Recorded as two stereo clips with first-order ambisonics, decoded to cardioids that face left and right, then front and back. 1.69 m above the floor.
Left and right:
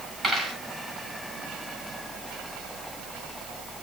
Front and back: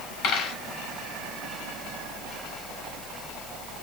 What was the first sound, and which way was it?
A dropped coin, 10° right.